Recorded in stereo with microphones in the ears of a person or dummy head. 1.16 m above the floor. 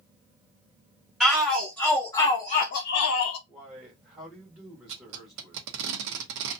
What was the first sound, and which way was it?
A shout, 5° right (ahead or behind).